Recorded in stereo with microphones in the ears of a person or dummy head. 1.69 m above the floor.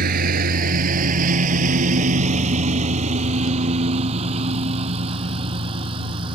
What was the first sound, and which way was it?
A lawn mower, 50° right (ahead or behind).